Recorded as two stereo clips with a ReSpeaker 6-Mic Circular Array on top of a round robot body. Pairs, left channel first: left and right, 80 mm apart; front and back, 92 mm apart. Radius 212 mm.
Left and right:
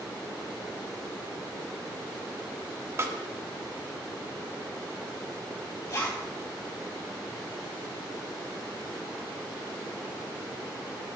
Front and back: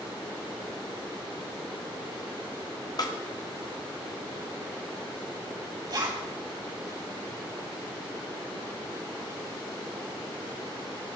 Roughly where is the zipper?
Behind left.